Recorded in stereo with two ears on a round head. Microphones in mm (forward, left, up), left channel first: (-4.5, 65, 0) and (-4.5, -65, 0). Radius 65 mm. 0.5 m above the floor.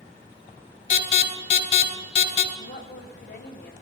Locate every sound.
0.9 s an alarm: 55° left (ahead or behind), 2.5 m
2.5 s a woman speaking: 70° left (ahead or behind), 2 m